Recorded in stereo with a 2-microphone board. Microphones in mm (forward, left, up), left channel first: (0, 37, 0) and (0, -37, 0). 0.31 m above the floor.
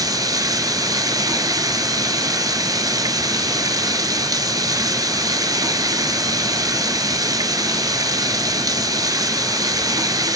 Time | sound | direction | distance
0.0 | running water | 55° right (ahead or behind) | 1.3 m